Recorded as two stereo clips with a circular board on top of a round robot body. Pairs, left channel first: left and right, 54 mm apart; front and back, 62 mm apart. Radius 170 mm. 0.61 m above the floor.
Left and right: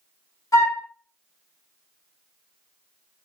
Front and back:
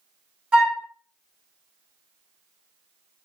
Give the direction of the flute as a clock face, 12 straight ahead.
8 o'clock.